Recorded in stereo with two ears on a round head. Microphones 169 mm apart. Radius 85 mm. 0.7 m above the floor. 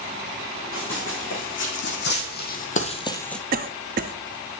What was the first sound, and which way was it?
Running footsteps, 80° left.